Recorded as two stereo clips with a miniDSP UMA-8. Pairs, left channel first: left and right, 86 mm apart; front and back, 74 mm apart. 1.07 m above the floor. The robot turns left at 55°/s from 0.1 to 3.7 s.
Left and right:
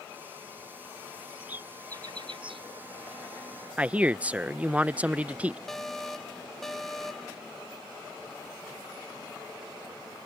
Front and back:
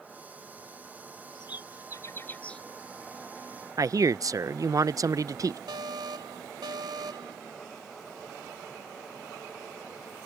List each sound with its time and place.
1.4 s a bird: 10° right; by 2.6 s 80° right
3.8 s a man speaking: 160° right
5.7 s an alarm: 175° left